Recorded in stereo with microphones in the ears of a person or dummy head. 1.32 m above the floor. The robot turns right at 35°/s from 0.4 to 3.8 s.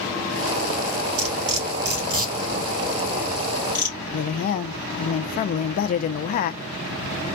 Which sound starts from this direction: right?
Cutlery clinking, at 1.2 s.